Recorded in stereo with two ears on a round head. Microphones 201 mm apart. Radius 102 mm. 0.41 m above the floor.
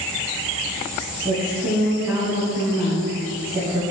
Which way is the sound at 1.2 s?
10° right (ahead or behind).